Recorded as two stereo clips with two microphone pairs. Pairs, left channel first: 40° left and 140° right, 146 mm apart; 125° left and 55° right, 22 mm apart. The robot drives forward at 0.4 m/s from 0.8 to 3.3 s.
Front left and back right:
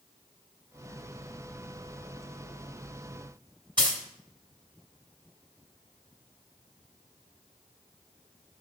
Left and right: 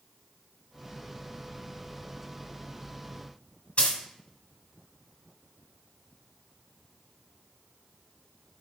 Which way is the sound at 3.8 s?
160° left.